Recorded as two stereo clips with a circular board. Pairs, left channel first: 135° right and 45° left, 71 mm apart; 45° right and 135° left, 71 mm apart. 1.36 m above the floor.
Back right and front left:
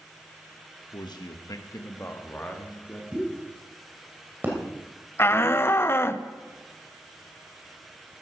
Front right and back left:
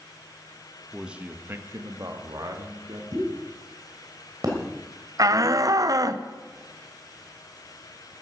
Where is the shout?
170° left, 0.9 m.